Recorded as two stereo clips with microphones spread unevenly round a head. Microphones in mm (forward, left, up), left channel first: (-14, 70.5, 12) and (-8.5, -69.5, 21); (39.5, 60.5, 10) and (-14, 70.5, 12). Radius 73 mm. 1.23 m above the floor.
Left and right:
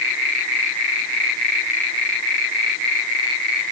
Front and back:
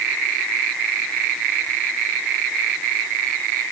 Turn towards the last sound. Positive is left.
No sound to turn to.